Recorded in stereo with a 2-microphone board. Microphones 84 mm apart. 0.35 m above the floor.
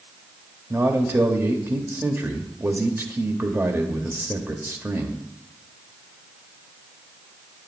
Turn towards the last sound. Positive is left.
turn(degrees=-30)  # may be behind; listen again after turning